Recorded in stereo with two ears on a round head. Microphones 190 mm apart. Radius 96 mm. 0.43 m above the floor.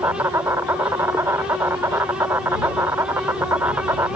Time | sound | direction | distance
0.0 | an insect | 10° right (ahead or behind) | ?